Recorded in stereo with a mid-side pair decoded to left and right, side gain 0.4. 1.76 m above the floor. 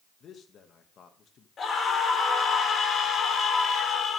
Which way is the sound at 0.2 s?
65° left.